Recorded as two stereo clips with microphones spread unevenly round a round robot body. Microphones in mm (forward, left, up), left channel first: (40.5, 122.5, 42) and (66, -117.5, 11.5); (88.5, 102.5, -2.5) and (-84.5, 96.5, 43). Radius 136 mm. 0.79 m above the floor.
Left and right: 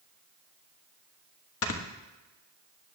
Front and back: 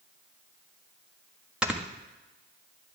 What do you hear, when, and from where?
1.6 s snoring: 85° left, 1.5 m